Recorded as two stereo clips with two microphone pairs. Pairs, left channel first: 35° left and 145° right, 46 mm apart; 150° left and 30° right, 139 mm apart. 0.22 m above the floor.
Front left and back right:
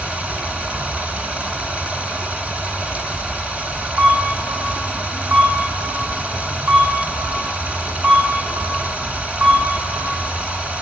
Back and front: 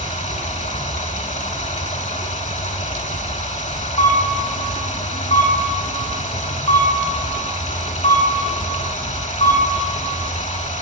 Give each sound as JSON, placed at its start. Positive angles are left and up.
{"t": 0.0, "sound": "running water", "azimuth_deg": 160, "distance_m": 1.1}
{"t": 4.0, "sound": "a camera shutter", "azimuth_deg": -170, "distance_m": 5.5}